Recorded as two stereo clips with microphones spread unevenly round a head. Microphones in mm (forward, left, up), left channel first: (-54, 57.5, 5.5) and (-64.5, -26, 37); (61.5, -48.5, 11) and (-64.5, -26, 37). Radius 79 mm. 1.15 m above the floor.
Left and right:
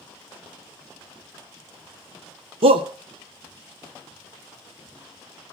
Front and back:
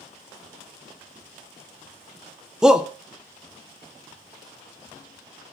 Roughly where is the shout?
Right.